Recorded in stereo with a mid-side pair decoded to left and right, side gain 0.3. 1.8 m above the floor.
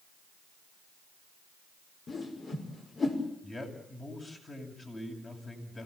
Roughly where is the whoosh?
Ahead left.